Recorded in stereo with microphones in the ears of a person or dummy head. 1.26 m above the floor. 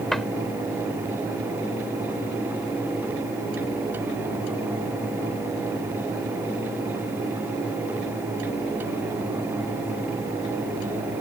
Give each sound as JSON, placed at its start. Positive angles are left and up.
{"t": 0.1, "sound": "a cupboard door", "side_deg": 5}